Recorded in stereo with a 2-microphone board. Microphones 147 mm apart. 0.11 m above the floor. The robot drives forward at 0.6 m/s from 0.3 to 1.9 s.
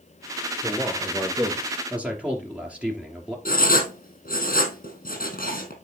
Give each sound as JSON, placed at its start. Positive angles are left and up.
{"t": 0.6, "sound": "a man speaking", "side_deg": -10, "distance_m": 2.0}
{"t": 3.5, "sound": "writing", "side_deg": 70, "distance_m": 3.0}